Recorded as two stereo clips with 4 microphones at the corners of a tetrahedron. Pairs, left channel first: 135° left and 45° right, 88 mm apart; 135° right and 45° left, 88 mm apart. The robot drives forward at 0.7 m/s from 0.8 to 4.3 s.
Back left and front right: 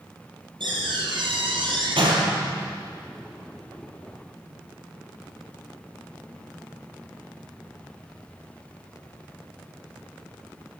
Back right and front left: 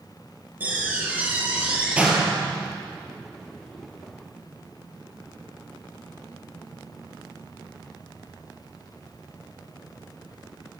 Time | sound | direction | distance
0.6 | a door slam | 25° right | 6 m